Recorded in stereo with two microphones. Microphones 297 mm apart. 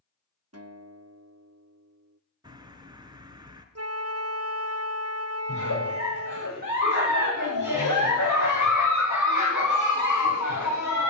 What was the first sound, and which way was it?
A guitar, 55° right (ahead or behind).